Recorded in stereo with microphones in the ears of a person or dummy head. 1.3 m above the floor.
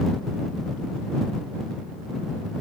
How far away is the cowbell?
No cowbell in this recording.